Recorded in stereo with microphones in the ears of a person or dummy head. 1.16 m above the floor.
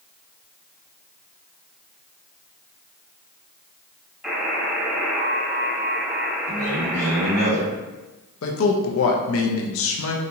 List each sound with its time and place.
4.2 s a buzzer: 5° right (ahead or behind), 1.8 m
6.5 s a man speaking: 65° right (ahead or behind), 2.0 m
8.4 s a man speaking: 70° left (ahead or behind), 0.7 m